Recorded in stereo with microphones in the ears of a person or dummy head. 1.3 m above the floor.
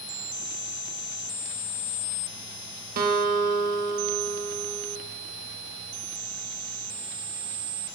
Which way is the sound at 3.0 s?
50° right (ahead or behind).